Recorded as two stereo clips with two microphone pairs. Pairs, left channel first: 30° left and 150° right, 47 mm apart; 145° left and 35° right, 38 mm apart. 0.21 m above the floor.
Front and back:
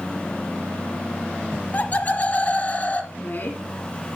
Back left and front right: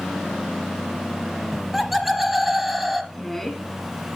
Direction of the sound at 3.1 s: 70° left.